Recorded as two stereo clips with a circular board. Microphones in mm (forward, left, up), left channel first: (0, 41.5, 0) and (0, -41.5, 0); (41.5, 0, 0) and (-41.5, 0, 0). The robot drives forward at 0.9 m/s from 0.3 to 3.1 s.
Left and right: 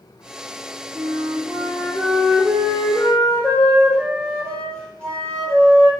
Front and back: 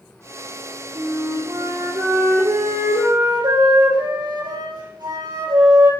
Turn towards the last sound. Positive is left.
turn(degrees=170)